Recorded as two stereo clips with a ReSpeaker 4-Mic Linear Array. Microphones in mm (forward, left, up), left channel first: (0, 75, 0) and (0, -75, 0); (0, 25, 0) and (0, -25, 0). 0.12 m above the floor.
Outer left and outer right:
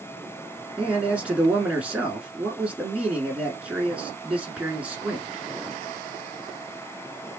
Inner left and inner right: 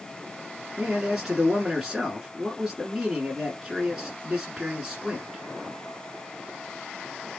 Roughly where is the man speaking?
Centre.